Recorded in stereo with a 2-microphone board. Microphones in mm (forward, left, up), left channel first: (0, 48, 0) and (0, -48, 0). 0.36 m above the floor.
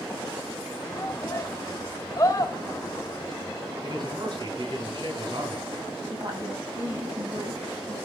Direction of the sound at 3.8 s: 45° right (ahead or behind).